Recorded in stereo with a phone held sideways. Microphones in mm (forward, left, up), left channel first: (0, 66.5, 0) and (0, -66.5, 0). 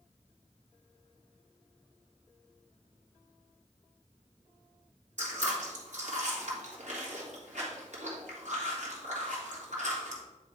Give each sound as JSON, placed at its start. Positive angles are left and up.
{"t": 5.2, "sound": "chewing", "side_deg": -60, "distance_m": 1.9}